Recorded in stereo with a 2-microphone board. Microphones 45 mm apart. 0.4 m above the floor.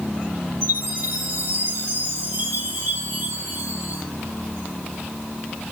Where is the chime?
70° right (ahead or behind), 5.5 m.